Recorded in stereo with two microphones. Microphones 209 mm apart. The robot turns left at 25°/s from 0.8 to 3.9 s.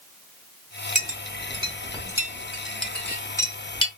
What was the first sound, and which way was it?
A clink, 40° right (ahead or behind).